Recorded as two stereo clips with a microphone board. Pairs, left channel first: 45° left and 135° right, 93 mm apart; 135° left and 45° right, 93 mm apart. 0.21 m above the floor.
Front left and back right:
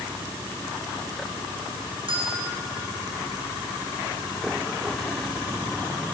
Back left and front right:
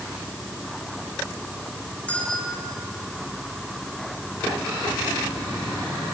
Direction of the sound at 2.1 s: 150° right.